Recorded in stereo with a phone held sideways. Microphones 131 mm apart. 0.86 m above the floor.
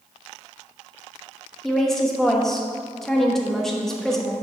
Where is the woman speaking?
5° left (ahead or behind), 1.1 m.